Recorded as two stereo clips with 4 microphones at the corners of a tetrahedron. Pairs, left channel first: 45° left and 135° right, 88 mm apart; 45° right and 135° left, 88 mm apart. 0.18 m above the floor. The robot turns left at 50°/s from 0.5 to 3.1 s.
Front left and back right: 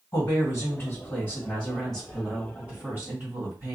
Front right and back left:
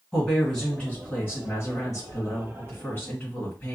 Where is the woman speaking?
35° left, 1.8 m; by 3.8 s 95° right, 1.8 m.